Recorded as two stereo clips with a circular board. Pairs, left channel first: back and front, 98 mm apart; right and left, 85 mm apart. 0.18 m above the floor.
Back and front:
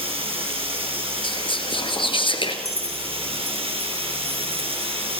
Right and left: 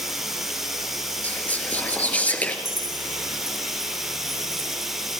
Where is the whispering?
160° right, 2.5 m.